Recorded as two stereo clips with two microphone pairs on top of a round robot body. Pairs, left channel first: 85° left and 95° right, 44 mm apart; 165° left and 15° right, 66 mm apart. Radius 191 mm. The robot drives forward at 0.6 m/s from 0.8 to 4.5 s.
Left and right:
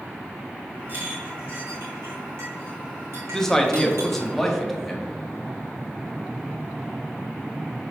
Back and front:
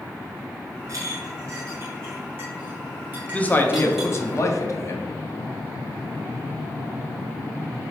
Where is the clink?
50° right, 2.5 m; by 4.2 s 100° right, 2 m.